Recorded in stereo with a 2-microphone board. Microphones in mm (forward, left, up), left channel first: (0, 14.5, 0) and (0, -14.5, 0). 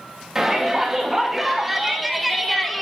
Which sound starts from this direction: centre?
A shout, at 0.3 s.